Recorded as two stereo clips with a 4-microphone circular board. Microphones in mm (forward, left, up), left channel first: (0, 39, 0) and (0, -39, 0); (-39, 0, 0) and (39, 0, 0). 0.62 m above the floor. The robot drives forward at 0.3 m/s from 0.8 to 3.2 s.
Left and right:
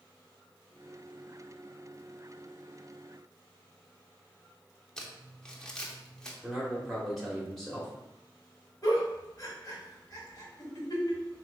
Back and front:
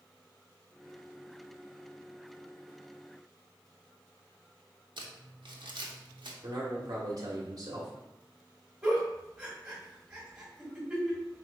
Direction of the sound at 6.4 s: Straight ahead.